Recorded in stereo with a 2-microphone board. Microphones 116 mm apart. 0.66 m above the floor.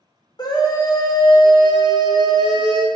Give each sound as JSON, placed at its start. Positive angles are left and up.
{"t": 0.4, "sound": "a scream", "side_deg": 35, "distance_m": 0.8}